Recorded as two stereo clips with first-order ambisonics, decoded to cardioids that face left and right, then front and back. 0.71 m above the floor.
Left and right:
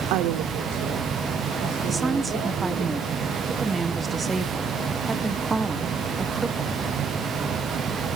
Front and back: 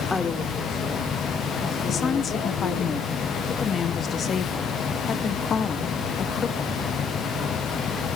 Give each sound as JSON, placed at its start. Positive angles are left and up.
{"t": 0.1, "sound": "a woman speaking", "azimuth_deg": -80, "distance_m": 1.4}
{"t": 1.9, "sound": "a woman speaking", "azimuth_deg": -25, "distance_m": 0.7}